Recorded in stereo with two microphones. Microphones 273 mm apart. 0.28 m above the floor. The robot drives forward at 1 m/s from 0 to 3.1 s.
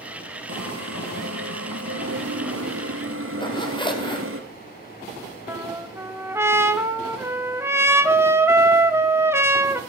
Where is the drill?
65° right (ahead or behind), 2.5 m; by 4.4 s 50° right (ahead or behind), 3 m.